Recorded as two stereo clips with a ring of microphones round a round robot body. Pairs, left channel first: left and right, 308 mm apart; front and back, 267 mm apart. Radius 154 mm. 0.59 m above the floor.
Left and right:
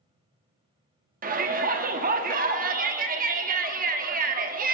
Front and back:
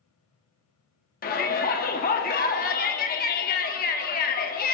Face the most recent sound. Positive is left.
turn(degrees=-40)